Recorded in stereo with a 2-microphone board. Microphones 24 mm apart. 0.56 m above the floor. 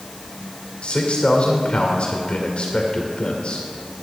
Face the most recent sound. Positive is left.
turn(degrees=55)  # may be behind; listen again after turning